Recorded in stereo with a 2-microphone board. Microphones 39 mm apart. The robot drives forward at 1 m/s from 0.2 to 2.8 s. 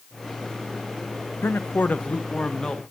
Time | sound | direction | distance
1.4 | a man speaking | 75° left (ahead or behind) | 0.6 m